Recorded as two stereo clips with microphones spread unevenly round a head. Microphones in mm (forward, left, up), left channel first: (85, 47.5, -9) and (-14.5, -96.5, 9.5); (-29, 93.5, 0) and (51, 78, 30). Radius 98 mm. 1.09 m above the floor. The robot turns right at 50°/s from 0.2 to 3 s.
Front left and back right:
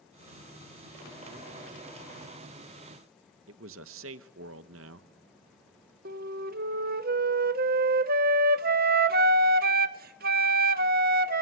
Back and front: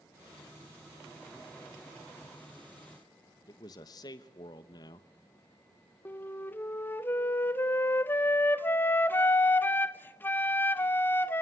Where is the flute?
150° right, 0.8 m.